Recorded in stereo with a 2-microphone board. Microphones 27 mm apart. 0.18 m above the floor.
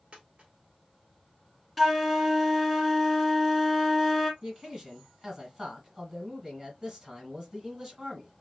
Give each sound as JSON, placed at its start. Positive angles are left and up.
{"t": 0.1, "sound": "a dropped coin", "side_deg": -50, "distance_m": 1.4}
{"t": 1.8, "sound": "a flute", "side_deg": 0, "distance_m": 0.6}
{"t": 4.4, "sound": "a man speaking", "side_deg": -25, "distance_m": 1.5}